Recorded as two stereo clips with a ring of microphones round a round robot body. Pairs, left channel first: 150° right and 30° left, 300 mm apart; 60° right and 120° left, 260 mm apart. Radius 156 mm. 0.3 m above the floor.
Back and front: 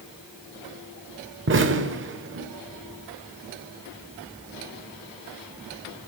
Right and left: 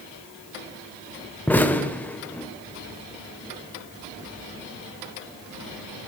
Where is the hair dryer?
No hair dryer in this recording.